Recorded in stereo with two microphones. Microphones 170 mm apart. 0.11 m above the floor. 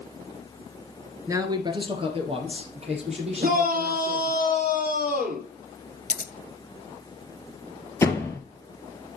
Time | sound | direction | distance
1.3 | a man speaking | 15° right (ahead or behind) | 1.3 m
3.4 | a shout | 60° right (ahead or behind) | 3.5 m
6.1 | scissors | 50° left (ahead or behind) | 0.6 m
8.0 | a door slam | 15° left (ahead or behind) | 1.7 m